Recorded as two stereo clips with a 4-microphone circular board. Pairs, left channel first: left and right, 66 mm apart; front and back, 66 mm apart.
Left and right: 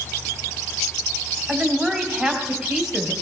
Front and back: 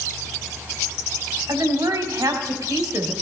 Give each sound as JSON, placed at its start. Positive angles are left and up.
{"t": 1.5, "sound": "a woman speaking", "azimuth_deg": -170, "distance_m": 1.9}